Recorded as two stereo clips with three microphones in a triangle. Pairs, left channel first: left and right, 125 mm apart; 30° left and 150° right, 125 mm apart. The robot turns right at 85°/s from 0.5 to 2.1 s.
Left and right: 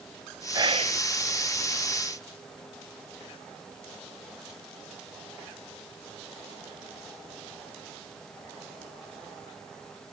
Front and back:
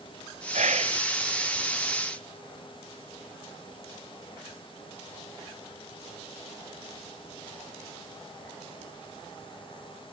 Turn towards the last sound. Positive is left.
turn(degrees=-15)